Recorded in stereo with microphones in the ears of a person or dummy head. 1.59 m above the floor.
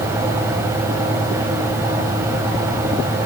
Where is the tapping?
No tapping in this recording.